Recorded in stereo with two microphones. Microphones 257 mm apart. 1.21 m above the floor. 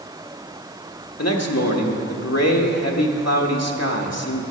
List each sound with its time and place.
1.2 s a man speaking: 75° left (ahead or behind), 1.3 m